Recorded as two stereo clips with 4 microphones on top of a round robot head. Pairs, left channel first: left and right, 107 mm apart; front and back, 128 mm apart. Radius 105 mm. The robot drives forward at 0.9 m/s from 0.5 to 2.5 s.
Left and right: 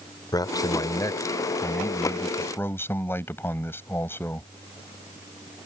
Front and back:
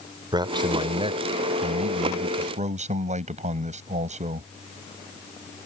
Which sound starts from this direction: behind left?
A man speaking, at 0.3 s.